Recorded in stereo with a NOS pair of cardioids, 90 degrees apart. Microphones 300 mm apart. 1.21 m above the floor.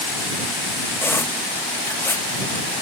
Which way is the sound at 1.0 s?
10° left.